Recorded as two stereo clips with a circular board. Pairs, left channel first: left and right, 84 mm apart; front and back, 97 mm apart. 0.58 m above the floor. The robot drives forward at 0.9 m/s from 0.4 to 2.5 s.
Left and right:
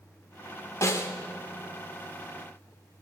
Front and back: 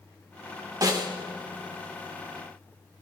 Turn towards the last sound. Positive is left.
turn(degrees=165)